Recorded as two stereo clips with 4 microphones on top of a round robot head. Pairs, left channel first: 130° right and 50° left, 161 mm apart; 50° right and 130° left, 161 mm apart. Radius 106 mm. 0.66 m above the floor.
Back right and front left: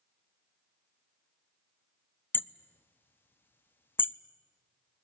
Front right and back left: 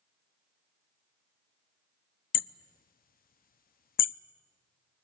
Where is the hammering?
55° right, 0.7 m.